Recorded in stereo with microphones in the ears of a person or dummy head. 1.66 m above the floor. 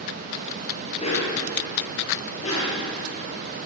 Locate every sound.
1.0 s a dog barking: 30° left (ahead or behind), 8.5 m; by 2.8 s 35° left (ahead or behind), 10.5 m